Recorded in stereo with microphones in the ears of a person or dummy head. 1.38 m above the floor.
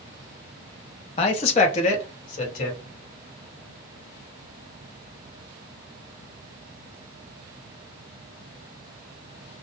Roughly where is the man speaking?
Left.